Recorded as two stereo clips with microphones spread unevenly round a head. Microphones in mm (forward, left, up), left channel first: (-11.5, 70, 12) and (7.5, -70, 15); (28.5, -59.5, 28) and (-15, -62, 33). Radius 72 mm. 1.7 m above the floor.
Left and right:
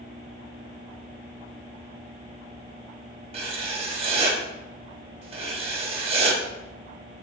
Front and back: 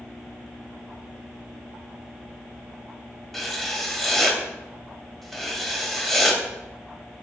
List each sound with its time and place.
3.3 s writing: 90° right, 0.7 m